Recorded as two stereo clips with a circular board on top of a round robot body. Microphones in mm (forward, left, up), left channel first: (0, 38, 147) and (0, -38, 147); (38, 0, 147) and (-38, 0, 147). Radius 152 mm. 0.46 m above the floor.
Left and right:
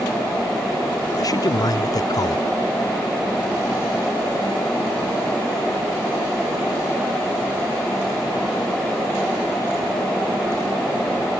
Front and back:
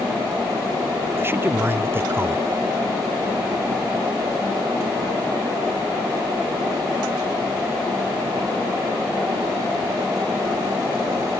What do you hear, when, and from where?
1.1 s a man speaking: 125° left